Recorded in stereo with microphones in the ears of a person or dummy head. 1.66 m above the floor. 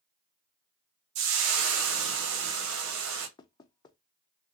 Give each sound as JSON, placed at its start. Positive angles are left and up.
{"t": 1.1, "sound": "frying", "side_deg": -85, "distance_m": 0.9}
{"t": 3.4, "sound": "knocking", "side_deg": 25, "distance_m": 0.5}